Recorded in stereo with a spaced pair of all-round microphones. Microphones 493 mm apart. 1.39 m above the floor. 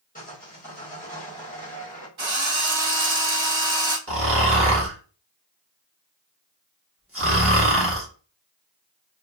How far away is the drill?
About 1.1 m.